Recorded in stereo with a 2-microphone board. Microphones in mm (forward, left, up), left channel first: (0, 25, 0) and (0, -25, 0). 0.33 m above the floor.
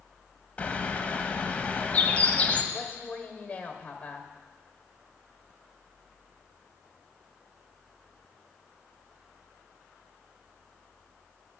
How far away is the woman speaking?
About 1.5 m.